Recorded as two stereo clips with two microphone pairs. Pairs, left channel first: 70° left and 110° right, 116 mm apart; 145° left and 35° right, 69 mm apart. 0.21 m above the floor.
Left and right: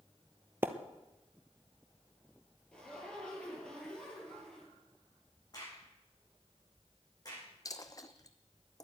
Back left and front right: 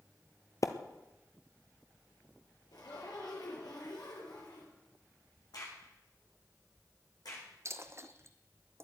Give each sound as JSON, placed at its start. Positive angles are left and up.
{"t": 0.6, "sound": "a splash", "azimuth_deg": 180, "distance_m": 1.0}
{"t": 2.7, "sound": "a zipper", "azimuth_deg": 150, "distance_m": 4.5}
{"t": 5.5, "sound": "a crack", "azimuth_deg": 125, "distance_m": 7.5}
{"t": 7.7, "sound": "a dropped coin", "azimuth_deg": 10, "distance_m": 0.9}